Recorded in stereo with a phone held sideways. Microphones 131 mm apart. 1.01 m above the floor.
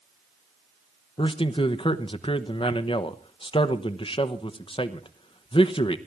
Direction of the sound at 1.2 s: 40° left (ahead or behind).